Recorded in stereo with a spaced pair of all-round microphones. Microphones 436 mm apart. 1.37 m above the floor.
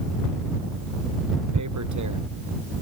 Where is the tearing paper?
45° right (ahead or behind).